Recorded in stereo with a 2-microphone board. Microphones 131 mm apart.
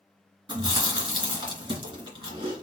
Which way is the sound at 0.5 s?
35° right (ahead or behind).